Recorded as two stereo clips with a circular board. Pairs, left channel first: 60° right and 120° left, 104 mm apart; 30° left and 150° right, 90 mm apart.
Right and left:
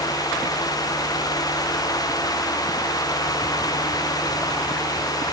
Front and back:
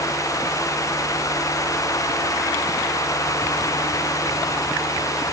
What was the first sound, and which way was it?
Only background noise.